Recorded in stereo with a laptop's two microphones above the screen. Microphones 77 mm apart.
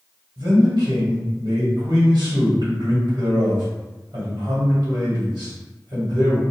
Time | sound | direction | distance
0.4 | a man speaking | 70° right (ahead or behind) | 1.3 m